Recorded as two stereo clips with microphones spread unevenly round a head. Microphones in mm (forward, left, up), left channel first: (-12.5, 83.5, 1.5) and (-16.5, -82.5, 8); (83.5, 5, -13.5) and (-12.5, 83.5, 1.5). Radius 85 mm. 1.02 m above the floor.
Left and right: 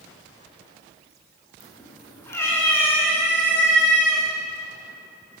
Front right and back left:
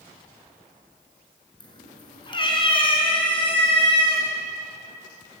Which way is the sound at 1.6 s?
15° left.